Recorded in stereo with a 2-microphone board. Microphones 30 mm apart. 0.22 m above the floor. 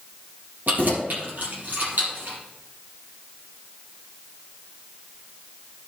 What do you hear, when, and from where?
0.7 s keys jangling: 70° right (ahead or behind), 3.5 m